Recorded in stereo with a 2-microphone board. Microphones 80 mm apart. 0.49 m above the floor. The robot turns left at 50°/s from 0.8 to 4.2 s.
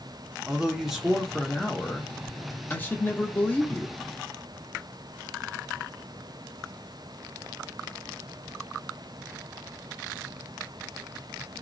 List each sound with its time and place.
0.5 s a man speaking: 5° right (ahead or behind), 0.7 m; by 4.0 s 15° left (ahead or behind), 0.7 m